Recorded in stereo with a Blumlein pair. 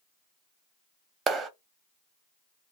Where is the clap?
20° right, 0.5 m.